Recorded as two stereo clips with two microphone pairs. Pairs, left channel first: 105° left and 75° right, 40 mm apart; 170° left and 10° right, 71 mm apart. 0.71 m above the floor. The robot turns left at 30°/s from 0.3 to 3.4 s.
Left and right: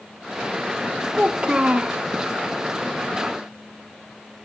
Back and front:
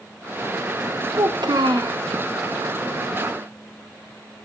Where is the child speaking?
5° right, 0.9 m; by 2.0 s 30° right, 0.9 m.